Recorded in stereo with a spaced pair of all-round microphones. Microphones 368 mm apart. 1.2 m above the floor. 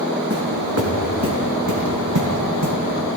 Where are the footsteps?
40° right (ahead or behind), 3.5 m; by 2.8 s 60° right (ahead or behind), 2.5 m.